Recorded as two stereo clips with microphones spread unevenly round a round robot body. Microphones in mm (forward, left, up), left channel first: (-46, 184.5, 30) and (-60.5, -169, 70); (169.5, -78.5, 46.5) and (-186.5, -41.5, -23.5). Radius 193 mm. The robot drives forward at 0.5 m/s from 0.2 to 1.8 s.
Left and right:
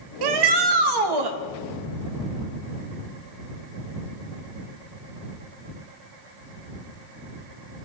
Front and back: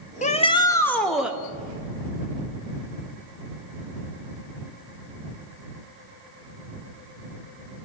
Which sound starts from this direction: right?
A shout, at 0.2 s.